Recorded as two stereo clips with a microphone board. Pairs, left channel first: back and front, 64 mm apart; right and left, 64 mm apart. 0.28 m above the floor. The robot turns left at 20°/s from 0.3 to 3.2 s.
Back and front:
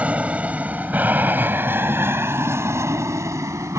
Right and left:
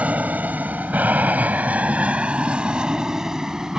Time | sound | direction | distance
0.0 | an aircraft | 45° left | ?